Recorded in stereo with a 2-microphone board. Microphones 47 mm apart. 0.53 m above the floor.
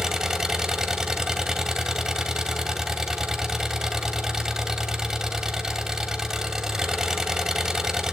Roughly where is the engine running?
Centre.